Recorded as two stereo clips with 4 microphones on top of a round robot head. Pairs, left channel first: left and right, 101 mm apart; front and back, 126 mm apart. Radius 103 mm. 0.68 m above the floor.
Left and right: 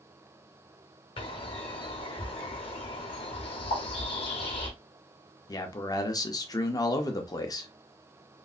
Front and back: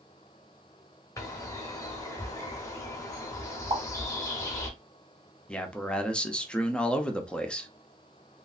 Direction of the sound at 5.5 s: 80° left.